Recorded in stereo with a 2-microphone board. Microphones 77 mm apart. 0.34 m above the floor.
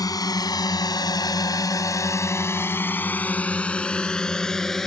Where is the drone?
50° left (ahead or behind); by 4.9 s 5° left (ahead or behind).